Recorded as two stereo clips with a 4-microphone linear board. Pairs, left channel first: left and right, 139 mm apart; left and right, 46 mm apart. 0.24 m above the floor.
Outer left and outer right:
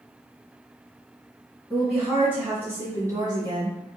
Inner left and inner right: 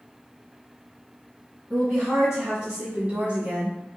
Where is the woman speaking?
Centre (ahead or behind), 1.7 m; by 3.8 s 40° right (ahead or behind), 1.4 m.